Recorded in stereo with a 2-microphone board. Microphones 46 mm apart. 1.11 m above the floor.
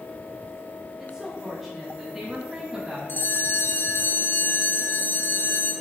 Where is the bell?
50° left (ahead or behind), 1.8 m.